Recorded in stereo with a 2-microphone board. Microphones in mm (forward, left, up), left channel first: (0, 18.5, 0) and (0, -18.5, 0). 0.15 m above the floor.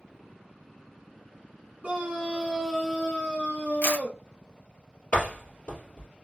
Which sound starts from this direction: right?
A scream, at 1.8 s.